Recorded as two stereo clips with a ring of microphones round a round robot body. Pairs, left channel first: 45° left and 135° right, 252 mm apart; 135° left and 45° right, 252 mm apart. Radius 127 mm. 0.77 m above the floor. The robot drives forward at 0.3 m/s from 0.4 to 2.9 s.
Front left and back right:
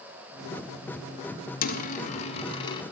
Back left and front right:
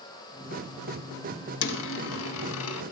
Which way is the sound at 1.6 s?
100° left.